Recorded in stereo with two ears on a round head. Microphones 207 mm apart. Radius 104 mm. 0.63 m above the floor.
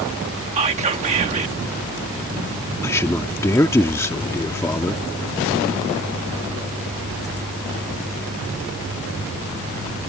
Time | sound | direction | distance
0.6 | whispering | 30° right (ahead or behind) | ?
2.8 | a man speaking | 10° left (ahead or behind) | ?